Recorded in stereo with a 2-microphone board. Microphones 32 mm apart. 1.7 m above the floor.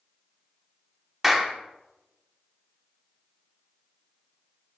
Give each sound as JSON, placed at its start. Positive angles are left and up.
{"t": 1.2, "sound": "a clap", "side_deg": -5, "distance_m": 1.0}